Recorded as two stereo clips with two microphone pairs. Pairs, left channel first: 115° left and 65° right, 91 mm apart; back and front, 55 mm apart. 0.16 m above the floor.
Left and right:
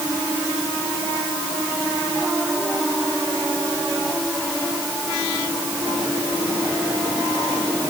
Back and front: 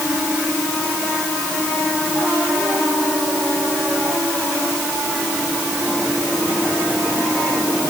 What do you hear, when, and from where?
Only background noise.